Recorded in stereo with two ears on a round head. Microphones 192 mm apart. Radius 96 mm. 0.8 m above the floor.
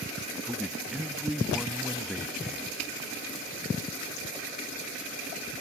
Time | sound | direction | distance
0.4 | a man speaking | centre (ahead or behind) | ?